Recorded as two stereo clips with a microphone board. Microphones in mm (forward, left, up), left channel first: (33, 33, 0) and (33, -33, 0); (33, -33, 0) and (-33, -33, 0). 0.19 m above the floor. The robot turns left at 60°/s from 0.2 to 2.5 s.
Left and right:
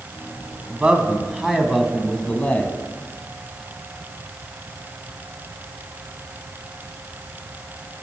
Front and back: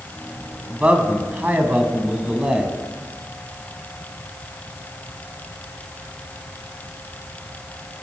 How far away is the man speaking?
About 1.1 m.